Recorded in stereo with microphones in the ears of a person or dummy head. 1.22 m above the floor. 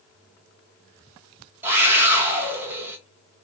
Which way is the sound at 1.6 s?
15° right (ahead or behind).